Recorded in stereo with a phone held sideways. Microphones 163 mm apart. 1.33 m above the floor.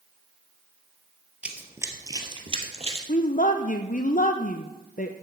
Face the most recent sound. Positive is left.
turn(degrees=55)  # may be behind; listen again after turning